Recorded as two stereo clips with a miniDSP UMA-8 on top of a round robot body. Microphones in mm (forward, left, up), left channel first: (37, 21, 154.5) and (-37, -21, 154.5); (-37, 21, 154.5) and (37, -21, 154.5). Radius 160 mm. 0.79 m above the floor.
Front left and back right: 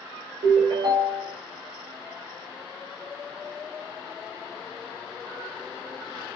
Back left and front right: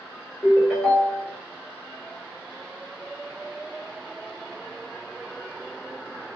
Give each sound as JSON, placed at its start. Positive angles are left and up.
{"t": 0.4, "sound": "a ringtone", "azimuth_deg": -125, "distance_m": 1.1}